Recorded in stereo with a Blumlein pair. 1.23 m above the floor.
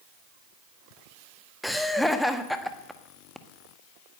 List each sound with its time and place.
1.6 s laughter: straight ahead, 1.7 m